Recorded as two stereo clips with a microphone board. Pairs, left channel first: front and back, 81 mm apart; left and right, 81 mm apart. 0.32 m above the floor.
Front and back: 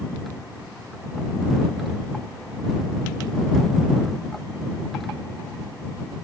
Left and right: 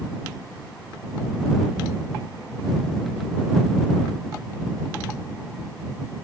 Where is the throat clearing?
No throat clearing in this recording.